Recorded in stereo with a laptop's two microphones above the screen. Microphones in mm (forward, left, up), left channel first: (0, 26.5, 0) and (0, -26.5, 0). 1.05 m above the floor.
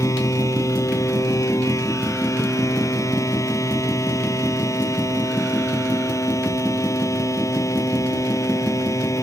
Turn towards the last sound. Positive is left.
turn(degrees=90)